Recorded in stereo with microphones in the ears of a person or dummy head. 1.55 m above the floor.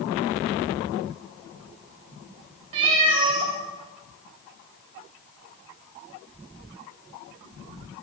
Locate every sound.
2.7 s a cat meowing: 30° right (ahead or behind), 1.2 m